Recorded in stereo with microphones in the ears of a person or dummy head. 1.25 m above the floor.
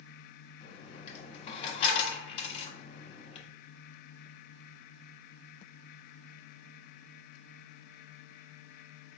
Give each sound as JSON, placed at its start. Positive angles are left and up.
{"t": 0.6, "sound": "a dropped coin", "side_deg": 40, "distance_m": 1.5}